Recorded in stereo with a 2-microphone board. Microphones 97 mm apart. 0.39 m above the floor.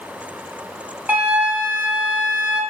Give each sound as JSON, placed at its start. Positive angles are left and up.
{"t": 1.1, "sound": "a flute", "side_deg": -15, "distance_m": 1.8}